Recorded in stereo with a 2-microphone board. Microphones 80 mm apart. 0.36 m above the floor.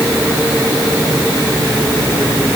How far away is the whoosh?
I don't hear a whoosh.